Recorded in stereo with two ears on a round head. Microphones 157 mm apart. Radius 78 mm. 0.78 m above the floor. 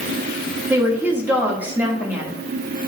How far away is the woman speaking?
About 1.3 m.